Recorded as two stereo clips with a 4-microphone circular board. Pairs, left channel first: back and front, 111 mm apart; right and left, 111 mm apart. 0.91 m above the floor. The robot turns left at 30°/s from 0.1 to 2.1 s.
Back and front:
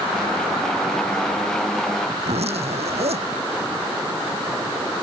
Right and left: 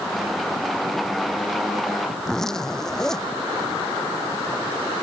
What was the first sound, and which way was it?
A zipper, 5° right.